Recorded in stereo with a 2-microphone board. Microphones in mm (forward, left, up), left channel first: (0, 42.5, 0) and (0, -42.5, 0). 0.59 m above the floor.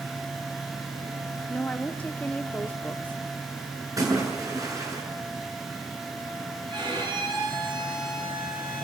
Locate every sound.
1.5 s a woman speaking: 20° left (ahead or behind), 0.9 m
4.0 s a splash: 40° right (ahead or behind), 7.5 m
6.7 s a violin: 70° right (ahead or behind), 8 m